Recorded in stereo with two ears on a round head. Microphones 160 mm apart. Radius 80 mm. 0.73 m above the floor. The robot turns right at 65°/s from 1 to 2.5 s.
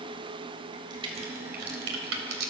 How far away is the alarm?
I don't hear an alarm.